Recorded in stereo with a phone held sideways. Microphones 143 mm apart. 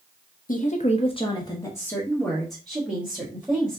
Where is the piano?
No piano in this recording.